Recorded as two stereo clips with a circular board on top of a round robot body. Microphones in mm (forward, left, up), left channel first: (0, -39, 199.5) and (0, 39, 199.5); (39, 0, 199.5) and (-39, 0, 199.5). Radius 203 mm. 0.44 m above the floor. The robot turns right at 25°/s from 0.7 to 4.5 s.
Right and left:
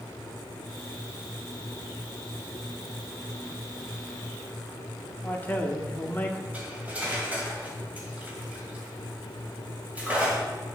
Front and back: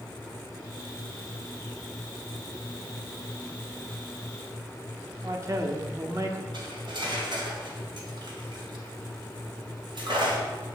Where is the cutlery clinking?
160° left, 2.5 m.